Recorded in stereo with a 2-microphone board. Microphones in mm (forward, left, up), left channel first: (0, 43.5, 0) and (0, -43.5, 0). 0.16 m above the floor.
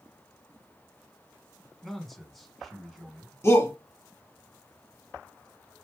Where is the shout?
30° left (ahead or behind), 1.2 m.